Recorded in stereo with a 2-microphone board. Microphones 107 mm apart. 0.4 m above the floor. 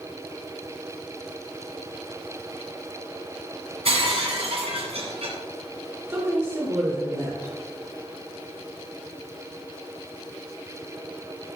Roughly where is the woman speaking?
Right.